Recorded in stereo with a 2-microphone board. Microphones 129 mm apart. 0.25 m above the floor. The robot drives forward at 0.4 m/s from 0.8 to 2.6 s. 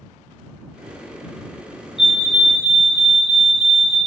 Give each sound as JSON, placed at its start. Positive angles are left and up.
{"t": 2.0, "sound": "a fire alarm", "side_deg": 0, "distance_m": 2.0}